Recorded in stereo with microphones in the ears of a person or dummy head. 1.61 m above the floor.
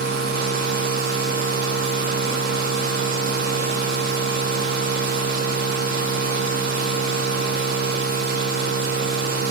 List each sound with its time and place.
0.0 s a machine running: 50° right (ahead or behind), 1.2 m